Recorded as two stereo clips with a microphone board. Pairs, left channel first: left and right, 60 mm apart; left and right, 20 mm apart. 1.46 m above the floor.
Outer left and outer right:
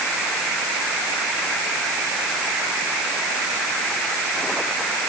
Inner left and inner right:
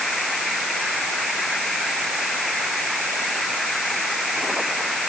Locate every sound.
Only background noise.